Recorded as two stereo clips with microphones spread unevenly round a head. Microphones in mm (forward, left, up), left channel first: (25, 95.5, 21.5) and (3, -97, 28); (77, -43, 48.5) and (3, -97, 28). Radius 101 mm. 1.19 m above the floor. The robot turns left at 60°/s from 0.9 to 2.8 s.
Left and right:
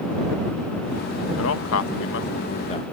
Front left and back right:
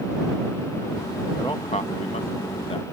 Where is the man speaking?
105° left; by 2.8 s 20° left.